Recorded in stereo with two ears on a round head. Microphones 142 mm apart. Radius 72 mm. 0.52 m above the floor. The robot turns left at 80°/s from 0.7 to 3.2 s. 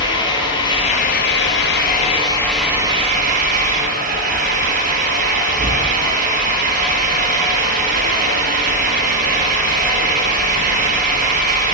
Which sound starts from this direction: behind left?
An engine running, at 0.0 s.